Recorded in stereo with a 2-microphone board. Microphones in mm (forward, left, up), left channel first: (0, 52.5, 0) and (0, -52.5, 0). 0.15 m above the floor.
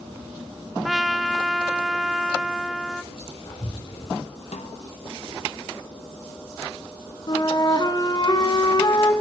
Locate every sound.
0.8 s a trumpet: centre (ahead or behind), 0.6 m
3.1 s whispering: 60° left (ahead or behind), 3.5 m
4.5 s a snare drum: 85° left, 1.1 m
7.3 s a flute: 40° left (ahead or behind), 1.3 m